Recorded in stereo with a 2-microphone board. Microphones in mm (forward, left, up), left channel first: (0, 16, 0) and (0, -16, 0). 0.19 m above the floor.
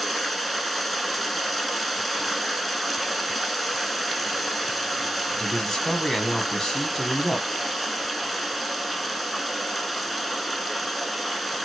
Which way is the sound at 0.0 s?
5° left (ahead or behind).